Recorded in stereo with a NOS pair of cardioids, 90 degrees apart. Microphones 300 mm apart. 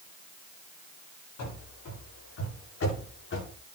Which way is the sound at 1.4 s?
60° left.